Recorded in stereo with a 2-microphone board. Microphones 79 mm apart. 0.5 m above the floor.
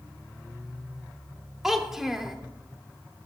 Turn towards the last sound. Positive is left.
turn(degrees=-5)  # may be behind; listen again after turning